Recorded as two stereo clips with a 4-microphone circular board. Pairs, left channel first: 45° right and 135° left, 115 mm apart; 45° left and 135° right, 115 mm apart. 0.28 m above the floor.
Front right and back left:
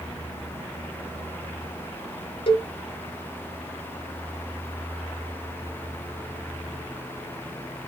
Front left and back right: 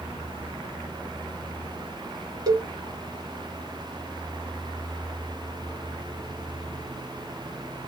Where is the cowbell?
85° right, 1.0 m.